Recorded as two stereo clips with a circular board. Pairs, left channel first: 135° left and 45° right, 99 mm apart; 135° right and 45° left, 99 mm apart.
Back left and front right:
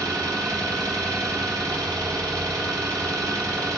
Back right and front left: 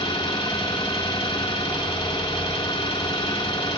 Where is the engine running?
95° right, 3 m.